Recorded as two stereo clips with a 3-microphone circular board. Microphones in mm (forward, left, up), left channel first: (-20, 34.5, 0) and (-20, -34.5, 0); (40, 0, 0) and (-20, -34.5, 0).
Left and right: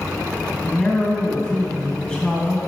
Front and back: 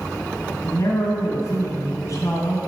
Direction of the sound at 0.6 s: 10° left.